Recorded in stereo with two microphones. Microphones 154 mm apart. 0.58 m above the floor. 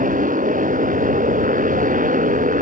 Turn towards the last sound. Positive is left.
turn(degrees=-60)  # may be behind; listen again after turning